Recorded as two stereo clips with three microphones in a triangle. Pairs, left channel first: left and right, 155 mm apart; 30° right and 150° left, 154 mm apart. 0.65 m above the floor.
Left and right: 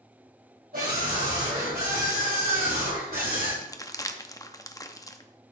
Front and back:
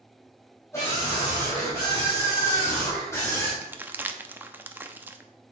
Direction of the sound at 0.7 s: 100° right.